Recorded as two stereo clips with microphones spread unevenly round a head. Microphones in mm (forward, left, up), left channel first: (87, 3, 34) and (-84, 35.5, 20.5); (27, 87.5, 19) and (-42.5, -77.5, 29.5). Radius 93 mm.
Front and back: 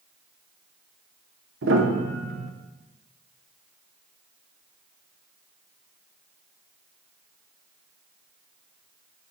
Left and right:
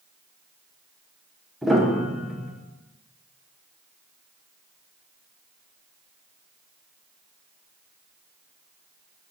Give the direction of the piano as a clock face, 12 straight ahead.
7 o'clock.